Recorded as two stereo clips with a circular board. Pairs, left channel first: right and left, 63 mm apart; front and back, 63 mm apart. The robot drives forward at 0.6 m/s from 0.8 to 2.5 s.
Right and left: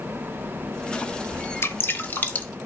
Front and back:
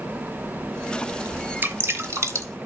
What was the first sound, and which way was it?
Dripping, 130° right.